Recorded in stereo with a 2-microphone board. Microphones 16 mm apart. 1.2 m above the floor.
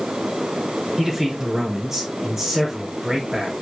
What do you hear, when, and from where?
1.0 s a man speaking: 30° right (ahead or behind), 5.5 m